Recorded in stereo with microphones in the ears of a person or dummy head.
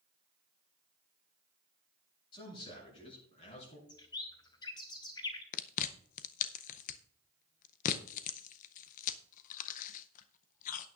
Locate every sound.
2.3 s a man speaking: 30° left (ahead or behind), 7 m; by 3.8 s 40° left (ahead or behind), 7.5 m
3.9 s a bird: 20° left (ahead or behind), 0.8 m
5.5 s chewing: 45° left (ahead or behind), 0.6 m